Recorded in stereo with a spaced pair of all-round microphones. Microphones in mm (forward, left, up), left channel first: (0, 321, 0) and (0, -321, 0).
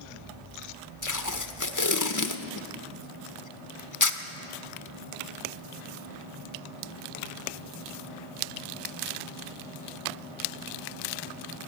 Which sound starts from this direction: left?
Tape being pulled, at 1.0 s.